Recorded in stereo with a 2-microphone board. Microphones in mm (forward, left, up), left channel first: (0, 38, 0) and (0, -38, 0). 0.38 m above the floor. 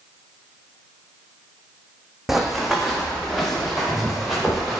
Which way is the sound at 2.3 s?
5° right (ahead or behind).